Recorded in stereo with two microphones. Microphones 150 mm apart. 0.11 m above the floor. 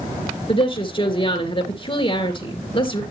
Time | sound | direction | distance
0.5 | a woman speaking | 35° left (ahead or behind) | 1.9 m